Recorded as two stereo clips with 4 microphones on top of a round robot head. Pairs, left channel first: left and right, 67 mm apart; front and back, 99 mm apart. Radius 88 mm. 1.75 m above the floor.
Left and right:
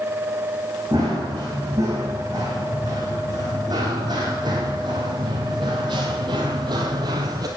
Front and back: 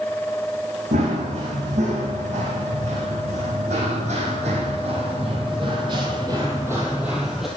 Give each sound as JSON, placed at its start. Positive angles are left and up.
{"t": 0.9, "sound": "running footsteps", "azimuth_deg": -155, "distance_m": 5.0}